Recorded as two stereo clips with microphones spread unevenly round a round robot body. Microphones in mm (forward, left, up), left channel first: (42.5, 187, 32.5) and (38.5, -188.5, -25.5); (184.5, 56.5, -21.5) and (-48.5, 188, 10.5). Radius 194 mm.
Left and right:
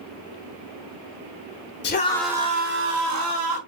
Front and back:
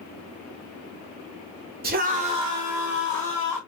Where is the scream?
135° left, 0.9 m; by 3.6 s 110° right, 1.7 m.